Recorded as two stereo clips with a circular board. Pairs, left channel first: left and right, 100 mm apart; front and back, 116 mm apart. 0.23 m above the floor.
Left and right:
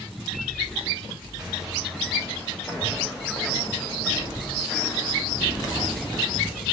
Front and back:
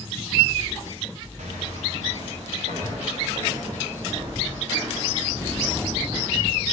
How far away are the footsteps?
About 3 m.